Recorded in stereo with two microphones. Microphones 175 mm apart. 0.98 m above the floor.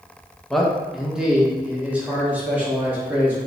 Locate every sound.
0.5 s a man speaking: centre (ahead or behind), 0.8 m; by 3.4 s 10° right (ahead or behind), 2 m